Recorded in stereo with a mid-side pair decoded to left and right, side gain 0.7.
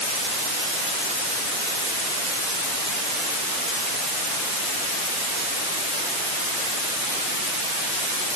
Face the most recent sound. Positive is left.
No sound to turn to.